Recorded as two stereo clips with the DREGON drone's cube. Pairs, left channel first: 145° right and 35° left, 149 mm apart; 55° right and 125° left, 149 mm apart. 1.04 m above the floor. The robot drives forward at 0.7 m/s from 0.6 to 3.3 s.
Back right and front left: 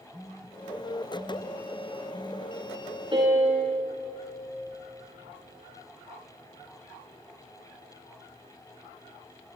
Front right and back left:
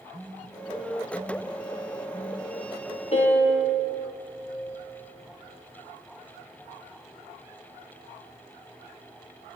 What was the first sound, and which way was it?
A phone buzzing, 135° left.